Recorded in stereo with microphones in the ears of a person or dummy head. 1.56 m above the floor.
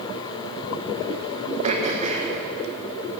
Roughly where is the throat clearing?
Right.